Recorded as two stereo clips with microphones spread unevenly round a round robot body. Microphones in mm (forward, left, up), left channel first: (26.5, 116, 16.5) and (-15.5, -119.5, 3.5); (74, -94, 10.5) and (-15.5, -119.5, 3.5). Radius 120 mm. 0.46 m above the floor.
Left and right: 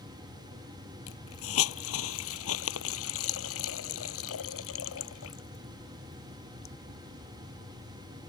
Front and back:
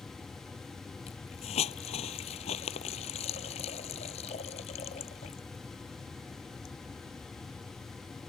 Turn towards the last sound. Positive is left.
turn(degrees=45)